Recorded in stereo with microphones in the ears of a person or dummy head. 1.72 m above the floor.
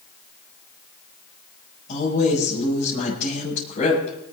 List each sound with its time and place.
1.9 s a woman speaking: 45° left (ahead or behind), 8 m